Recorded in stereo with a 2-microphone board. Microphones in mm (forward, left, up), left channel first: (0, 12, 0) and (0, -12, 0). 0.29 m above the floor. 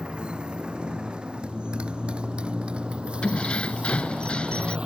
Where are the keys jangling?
60° left (ahead or behind).